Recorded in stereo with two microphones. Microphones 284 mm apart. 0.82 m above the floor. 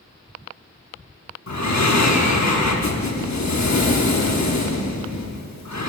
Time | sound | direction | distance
1.5 | breathing | 70° left (ahead or behind) | 0.9 m